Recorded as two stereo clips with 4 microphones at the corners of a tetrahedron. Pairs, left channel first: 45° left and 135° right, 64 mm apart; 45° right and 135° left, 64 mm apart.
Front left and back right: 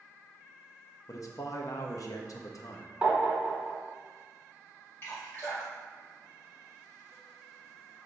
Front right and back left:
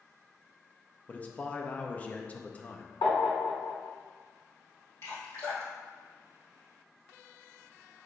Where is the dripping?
5° right, 2.0 m.